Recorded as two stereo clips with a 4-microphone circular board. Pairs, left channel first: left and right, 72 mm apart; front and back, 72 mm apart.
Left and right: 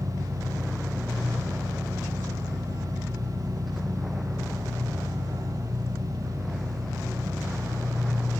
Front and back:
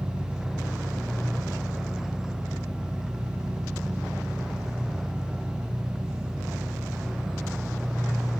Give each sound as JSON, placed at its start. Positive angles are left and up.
{"t": 0.0, "sound": "an engine running", "azimuth_deg": -100, "distance_m": 8.5}